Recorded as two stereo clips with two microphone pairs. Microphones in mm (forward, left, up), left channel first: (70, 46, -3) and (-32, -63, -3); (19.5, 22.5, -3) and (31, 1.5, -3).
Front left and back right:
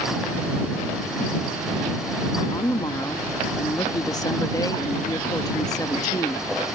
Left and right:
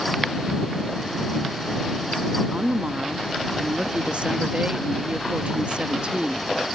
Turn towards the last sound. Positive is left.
turn(degrees=-20)